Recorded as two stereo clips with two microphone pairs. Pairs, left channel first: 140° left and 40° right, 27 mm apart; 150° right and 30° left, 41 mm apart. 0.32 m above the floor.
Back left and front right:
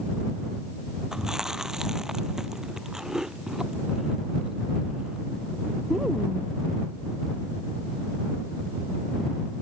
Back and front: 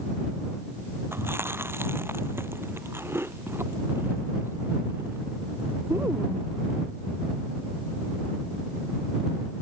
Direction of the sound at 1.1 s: 25° left.